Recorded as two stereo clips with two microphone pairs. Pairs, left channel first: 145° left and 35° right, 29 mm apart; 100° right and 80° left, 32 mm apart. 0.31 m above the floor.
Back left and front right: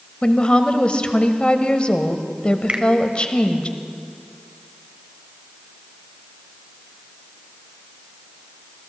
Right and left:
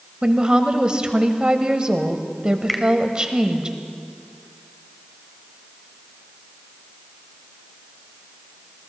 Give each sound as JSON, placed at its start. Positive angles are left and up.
{"t": 0.2, "sound": "a woman speaking", "azimuth_deg": 125, "distance_m": 1.0}
{"t": 2.7, "sound": "a finger snap", "azimuth_deg": -15, "distance_m": 1.1}